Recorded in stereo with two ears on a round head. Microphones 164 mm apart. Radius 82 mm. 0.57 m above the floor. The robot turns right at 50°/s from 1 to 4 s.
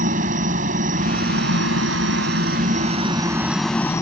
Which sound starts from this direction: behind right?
A helicopter, at 0.0 s.